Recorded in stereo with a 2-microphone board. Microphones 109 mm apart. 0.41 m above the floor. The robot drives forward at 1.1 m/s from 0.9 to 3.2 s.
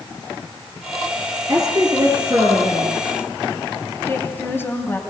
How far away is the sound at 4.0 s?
About 3.5 m.